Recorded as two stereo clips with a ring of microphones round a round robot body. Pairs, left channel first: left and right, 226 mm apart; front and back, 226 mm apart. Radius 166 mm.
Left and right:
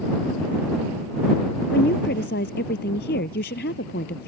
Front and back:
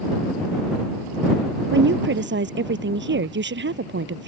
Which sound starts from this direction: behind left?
A woman speaking, at 1.7 s.